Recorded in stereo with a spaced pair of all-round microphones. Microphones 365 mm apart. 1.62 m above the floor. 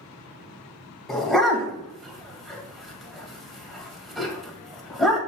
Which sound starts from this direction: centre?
A dog barking, at 1.1 s.